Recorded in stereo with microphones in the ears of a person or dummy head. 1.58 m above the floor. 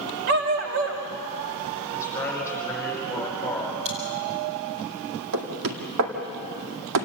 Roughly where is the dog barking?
Right.